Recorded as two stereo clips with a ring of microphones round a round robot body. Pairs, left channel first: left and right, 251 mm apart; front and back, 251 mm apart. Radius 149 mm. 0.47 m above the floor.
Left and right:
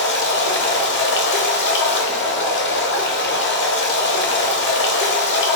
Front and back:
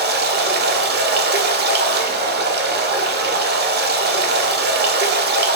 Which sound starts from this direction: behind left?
Running water, at 0.0 s.